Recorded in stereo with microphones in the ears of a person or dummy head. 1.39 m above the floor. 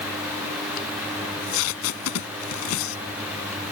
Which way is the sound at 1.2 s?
80° left.